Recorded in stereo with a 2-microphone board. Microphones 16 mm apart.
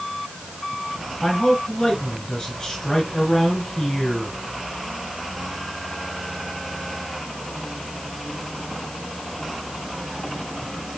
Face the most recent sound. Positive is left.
turn(degrees=35)  # may be behind; listen again after turning